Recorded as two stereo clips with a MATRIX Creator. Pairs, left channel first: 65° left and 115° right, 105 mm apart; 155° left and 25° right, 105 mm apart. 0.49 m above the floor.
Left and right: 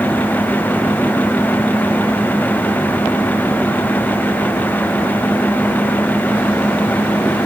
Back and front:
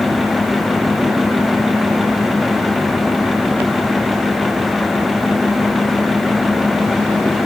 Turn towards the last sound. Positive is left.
No sound to turn to.